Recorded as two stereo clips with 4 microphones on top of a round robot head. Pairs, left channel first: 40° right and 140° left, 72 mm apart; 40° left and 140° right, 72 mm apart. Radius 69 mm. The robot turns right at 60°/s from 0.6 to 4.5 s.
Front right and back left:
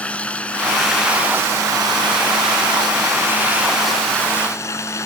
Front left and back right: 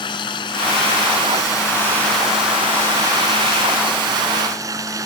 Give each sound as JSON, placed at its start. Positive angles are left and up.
{"t": 0.0, "sound": "running water", "azimuth_deg": 30}